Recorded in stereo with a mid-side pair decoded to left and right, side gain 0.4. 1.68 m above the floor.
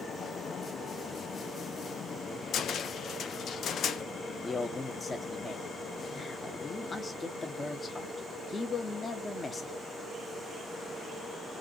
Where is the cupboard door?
65° left, 0.9 m.